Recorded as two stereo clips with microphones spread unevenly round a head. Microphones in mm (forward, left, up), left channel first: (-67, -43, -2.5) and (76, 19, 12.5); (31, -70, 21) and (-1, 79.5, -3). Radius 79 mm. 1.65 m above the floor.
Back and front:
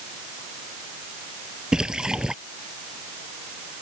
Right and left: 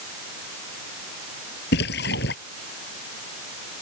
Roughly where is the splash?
Ahead right.